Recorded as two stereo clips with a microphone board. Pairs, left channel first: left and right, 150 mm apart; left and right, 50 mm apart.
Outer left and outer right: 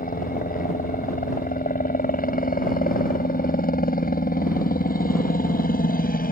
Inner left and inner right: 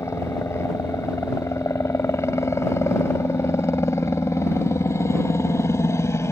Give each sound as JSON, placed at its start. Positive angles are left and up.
{"t": 0.0, "sound": "a helicopter", "side_deg": 70}